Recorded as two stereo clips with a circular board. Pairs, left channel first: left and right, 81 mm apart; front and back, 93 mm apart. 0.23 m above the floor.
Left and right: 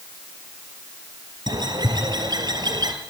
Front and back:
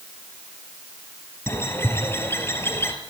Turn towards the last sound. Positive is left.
turn(degrees=-65)